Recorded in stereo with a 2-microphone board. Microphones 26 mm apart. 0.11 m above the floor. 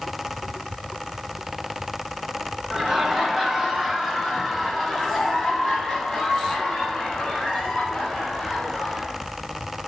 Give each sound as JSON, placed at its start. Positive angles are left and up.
{"t": 2.7, "sound": "laughter", "side_deg": -20, "distance_m": 1.8}